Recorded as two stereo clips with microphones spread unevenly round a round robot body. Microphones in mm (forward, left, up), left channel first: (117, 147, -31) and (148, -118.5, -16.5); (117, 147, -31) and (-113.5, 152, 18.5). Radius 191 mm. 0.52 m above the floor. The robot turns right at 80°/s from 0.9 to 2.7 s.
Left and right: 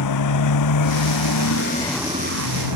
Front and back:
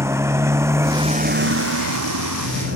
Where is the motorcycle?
100° left; by 2.8 s 115° right.